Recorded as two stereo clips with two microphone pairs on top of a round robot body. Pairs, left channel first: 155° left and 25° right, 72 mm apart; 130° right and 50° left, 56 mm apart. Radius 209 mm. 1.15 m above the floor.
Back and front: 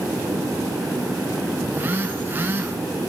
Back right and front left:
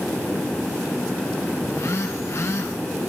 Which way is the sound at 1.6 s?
90° right.